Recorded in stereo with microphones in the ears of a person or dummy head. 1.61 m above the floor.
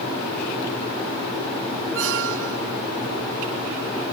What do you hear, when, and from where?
1.9 s a squeak: 80° right